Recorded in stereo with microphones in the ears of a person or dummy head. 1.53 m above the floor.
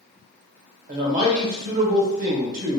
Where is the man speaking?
50° right (ahead or behind), 1.0 m.